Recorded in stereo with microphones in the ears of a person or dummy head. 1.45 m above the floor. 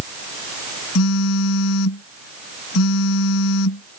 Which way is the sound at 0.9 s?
85° left.